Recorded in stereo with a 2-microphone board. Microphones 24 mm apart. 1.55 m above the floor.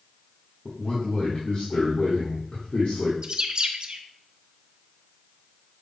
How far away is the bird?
About 0.5 m.